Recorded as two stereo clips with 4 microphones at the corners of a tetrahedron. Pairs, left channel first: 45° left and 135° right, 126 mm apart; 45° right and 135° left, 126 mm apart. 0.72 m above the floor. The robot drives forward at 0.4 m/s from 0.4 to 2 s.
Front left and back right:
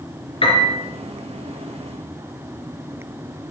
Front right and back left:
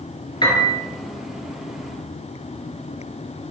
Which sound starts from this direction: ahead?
A piano, at 0.4 s.